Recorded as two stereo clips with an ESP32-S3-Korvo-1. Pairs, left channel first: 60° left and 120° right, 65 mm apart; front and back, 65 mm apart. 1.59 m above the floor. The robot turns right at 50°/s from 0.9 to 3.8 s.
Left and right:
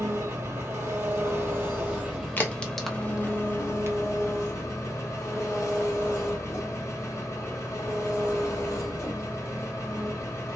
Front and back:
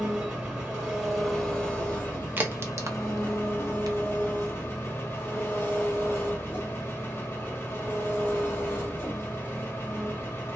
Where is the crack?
120° left, 0.8 m; by 4.0 s 170° right, 0.8 m.